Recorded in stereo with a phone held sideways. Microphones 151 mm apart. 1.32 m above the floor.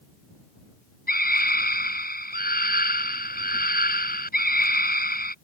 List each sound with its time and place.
1.1 s a scream: 80° left